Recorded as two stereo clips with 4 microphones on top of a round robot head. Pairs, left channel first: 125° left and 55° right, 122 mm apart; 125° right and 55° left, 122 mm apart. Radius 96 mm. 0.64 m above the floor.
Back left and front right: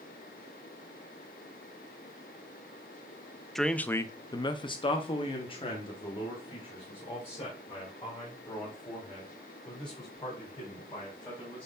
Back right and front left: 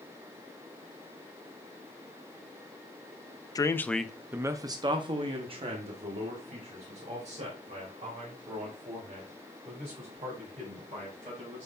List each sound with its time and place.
3.5 s a man speaking: 145° right, 0.7 m; by 11.7 s 80° left, 5.5 m